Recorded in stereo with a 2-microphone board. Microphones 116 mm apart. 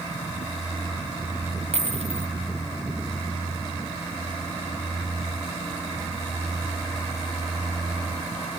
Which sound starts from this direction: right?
A dropped coin, at 1.7 s.